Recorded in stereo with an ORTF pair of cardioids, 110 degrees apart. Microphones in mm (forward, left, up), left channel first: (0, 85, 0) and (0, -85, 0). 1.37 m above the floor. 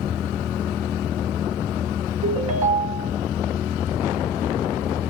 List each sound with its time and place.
2.2 s a ringtone: 40° right, 1.0 m